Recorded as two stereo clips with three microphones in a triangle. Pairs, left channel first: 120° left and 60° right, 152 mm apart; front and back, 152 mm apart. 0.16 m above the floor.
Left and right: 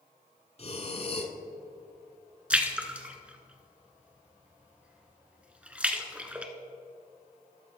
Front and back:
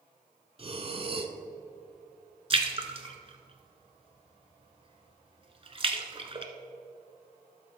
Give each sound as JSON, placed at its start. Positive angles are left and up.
{"t": 0.6, "sound": "breathing", "azimuth_deg": 145, "distance_m": 0.8}
{"t": 2.5, "sound": "a splash", "azimuth_deg": -140, "distance_m": 1.0}